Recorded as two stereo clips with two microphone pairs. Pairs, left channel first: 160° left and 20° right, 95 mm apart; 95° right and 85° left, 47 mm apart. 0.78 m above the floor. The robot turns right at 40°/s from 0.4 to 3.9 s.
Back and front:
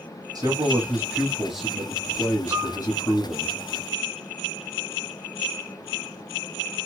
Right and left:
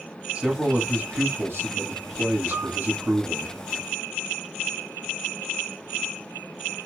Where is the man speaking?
25° left, 1.6 m; by 3.5 s 150° left, 1.6 m.